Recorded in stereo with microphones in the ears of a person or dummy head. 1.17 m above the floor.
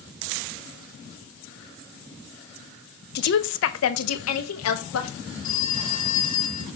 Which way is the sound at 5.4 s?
25° left (ahead or behind).